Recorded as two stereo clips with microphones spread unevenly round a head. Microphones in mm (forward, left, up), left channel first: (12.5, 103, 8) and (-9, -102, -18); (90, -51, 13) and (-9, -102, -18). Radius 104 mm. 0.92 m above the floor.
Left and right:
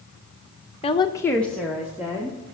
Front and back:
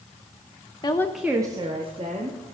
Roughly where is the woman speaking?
Ahead left.